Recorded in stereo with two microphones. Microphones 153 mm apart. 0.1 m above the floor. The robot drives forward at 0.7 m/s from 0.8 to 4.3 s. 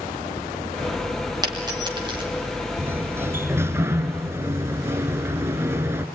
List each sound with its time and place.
1.4 s a dropped coin: 25° right (ahead or behind), 4.5 m; by 2.2 s 30° right (ahead or behind), 4 m
2.8 s a sliding door: 15° right (ahead or behind), 1.4 m